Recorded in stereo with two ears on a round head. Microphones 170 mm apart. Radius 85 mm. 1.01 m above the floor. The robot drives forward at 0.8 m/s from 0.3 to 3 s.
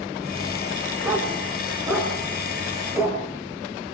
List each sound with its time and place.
1.0 s a dog barking: 10° right (ahead or behind), 3.5 m; by 3.2 s 5° right (ahead or behind), 5 m